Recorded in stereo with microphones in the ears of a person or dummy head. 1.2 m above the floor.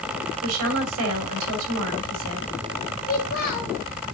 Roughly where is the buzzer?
No buzzer in this recording.